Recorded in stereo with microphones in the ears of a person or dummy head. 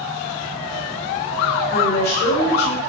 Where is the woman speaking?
60° left (ahead or behind), 6.5 m.